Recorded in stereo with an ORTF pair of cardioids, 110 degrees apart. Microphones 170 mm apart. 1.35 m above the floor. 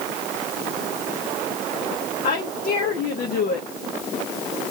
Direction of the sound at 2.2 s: 60° left.